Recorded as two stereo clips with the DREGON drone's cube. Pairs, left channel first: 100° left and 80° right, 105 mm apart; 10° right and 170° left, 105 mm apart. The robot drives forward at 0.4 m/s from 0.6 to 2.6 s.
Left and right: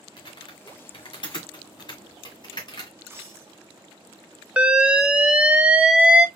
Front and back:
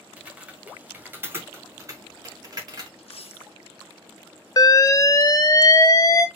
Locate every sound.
0.2 s typing on a keyboard: 100° left, 1.6 m; by 2.9 s 130° left, 1.9 m
3.0 s a dropped coin: 15° right, 1.0 m
4.6 s an alarm: 10° right, 0.6 m